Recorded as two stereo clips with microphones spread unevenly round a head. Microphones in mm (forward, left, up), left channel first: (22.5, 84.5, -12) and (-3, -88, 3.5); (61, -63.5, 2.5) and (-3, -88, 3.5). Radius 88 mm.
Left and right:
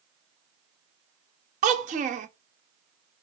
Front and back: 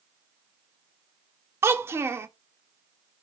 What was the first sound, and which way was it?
A child speaking, 120° right.